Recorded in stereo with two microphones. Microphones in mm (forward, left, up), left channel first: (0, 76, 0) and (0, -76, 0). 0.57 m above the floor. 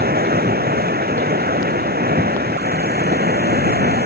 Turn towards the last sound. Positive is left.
turn(degrees=-80)